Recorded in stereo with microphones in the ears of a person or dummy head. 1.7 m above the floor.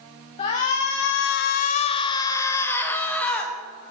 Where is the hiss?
I don't hear a hiss.